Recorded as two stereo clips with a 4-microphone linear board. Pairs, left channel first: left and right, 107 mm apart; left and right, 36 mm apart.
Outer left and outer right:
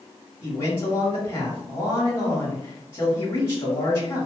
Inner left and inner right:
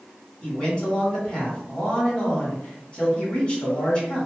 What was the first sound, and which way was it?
A man speaking, 20° left (ahead or behind).